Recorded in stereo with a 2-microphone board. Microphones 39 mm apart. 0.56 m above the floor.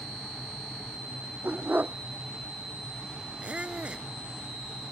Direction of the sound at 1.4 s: 55° right (ahead or behind).